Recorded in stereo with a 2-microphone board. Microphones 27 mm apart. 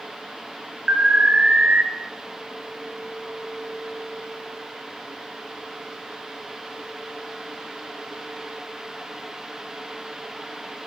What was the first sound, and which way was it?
An alarm, 60° right (ahead or behind).